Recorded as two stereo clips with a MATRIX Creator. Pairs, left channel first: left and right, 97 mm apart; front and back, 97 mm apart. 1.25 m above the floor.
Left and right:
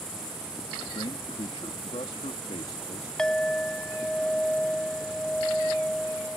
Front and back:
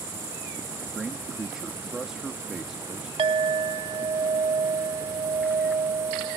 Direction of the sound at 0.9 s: 95° left.